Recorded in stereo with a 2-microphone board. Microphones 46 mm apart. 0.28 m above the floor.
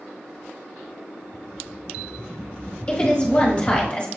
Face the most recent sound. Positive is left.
turn(degrees=25)  # may be behind; listen again after turning